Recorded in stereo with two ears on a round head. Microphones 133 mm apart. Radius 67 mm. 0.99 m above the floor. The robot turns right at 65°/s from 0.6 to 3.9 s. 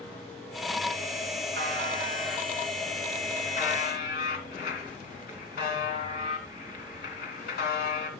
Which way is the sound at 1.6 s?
75° right.